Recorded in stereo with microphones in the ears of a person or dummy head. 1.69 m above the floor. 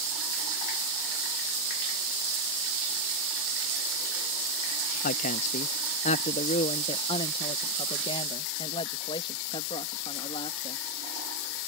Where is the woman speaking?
45° left (ahead or behind); by 10.8 s 25° left (ahead or behind).